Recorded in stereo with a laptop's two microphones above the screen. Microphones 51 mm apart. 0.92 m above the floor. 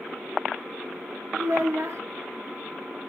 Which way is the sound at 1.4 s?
65° right (ahead or behind).